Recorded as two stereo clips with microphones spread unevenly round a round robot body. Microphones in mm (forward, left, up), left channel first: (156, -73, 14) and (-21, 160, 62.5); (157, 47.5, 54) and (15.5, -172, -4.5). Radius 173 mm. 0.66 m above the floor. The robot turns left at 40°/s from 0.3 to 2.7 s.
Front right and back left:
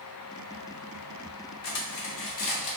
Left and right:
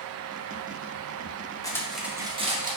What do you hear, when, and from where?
1.6 s cutlery clinking: 25° right, 0.8 m; by 2.8 s 65° right, 0.8 m